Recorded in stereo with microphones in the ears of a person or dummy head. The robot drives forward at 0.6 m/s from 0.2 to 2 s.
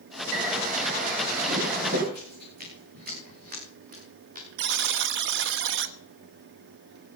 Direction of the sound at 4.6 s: 60° right (ahead or behind).